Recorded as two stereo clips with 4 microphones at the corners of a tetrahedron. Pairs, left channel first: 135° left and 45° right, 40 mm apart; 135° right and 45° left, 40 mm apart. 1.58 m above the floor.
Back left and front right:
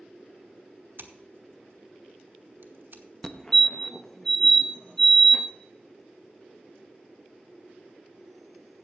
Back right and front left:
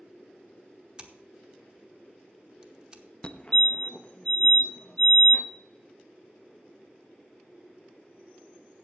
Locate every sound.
1.0 s scissors: 20° right, 1.0 m
3.2 s a fire alarm: 165° right, 0.7 m